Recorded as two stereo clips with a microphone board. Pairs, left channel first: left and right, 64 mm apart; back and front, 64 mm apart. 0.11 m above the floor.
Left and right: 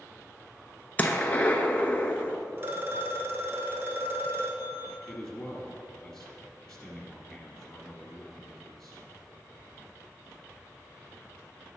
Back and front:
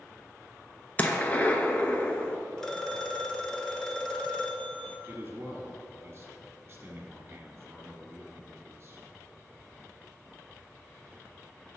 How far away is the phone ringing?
About 0.8 m.